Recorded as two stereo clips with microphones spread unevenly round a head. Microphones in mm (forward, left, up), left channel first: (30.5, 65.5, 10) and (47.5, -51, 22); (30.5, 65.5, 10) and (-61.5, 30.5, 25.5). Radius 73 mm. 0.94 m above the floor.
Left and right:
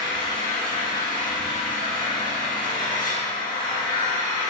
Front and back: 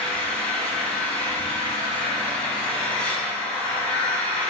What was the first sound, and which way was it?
An engine running, 100° left.